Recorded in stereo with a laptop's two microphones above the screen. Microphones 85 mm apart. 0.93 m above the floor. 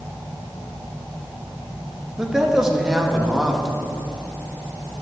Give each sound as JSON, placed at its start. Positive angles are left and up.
{"t": 2.2, "sound": "a man speaking", "side_deg": -5, "distance_m": 0.8}